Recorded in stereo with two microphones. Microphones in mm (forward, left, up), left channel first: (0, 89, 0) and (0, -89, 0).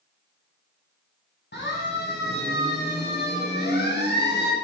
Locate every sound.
1.5 s a siren: 75° left (ahead or behind), 8 m